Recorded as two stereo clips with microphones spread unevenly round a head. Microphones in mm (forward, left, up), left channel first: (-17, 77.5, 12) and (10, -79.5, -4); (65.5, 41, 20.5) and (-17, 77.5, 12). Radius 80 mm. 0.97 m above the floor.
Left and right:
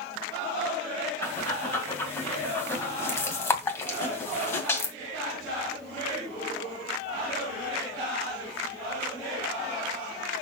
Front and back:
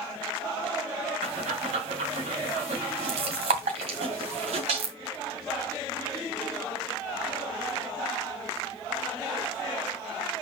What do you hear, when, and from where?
1.2 s breathing: 175° left, 2 m